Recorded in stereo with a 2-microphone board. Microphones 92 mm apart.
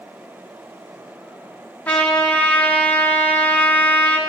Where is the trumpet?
15° left (ahead or behind), 1.0 m.